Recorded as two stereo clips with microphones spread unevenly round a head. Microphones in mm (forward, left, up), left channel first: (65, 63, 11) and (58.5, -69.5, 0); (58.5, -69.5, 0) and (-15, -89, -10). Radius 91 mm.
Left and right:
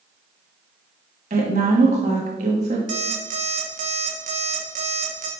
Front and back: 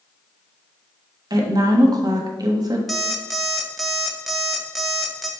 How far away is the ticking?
No ticking in this recording.